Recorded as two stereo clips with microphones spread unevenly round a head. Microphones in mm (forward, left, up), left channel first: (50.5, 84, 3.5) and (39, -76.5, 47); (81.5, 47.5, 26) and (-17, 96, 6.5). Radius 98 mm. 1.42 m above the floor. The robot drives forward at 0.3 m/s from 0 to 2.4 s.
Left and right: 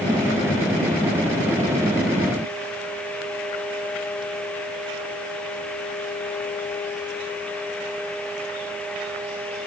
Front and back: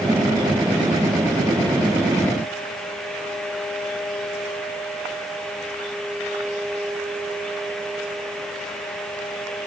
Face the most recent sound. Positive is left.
No sound to turn to.